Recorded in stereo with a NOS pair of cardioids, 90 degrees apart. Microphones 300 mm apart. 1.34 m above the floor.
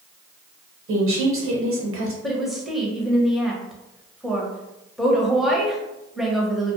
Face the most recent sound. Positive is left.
turn(degrees=0)